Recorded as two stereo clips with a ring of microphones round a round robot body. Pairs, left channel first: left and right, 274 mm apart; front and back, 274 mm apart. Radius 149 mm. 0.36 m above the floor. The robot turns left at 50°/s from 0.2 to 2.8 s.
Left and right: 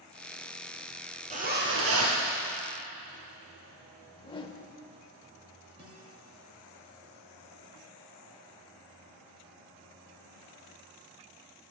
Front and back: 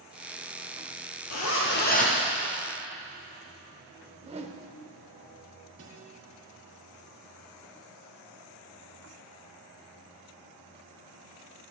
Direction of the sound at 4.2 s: 140° left.